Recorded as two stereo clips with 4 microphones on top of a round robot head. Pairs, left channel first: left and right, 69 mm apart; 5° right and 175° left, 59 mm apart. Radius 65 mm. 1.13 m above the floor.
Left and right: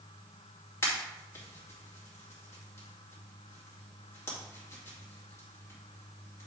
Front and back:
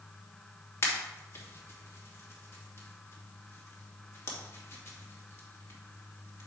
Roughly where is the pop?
Ahead left.